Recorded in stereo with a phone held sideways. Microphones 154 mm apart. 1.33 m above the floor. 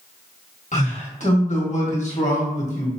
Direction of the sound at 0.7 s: 50° left (ahead or behind).